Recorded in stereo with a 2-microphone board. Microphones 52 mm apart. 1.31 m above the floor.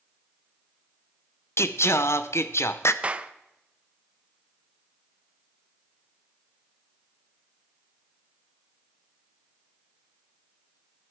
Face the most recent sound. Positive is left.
turn(degrees=-25)  # may be behind; listen again after turning